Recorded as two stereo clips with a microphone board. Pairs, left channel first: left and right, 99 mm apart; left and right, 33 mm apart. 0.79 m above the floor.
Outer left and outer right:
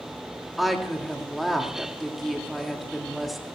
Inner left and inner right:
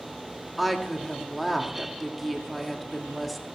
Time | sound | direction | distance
0.6 | a woman speaking | centre (ahead or behind) | 1.8 m